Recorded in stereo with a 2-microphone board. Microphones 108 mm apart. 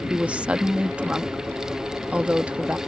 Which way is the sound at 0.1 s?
10° right (ahead or behind).